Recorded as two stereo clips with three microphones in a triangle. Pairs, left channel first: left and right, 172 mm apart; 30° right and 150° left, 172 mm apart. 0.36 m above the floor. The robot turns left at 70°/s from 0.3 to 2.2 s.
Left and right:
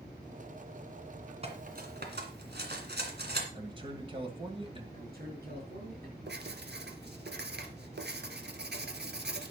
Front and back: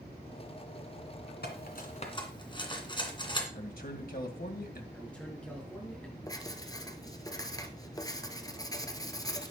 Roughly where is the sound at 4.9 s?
Behind right.